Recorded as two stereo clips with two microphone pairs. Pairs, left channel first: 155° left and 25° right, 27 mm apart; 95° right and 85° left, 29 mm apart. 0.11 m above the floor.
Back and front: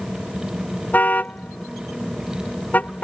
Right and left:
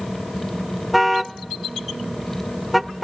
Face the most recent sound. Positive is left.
turn(degrees=175)